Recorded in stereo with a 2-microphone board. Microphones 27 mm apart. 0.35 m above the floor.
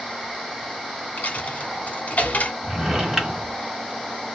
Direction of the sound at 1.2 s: 70° left (ahead or behind).